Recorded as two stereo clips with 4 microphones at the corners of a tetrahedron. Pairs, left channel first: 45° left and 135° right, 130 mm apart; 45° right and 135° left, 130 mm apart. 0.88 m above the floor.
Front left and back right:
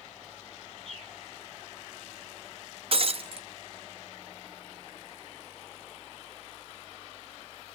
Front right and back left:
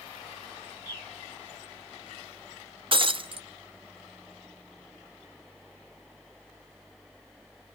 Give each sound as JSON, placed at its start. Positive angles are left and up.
{"t": 0.8, "sound": "a bird", "azimuth_deg": 10, "distance_m": 3.5}
{"t": 2.9, "sound": "breaking glass", "azimuth_deg": 180, "distance_m": 0.7}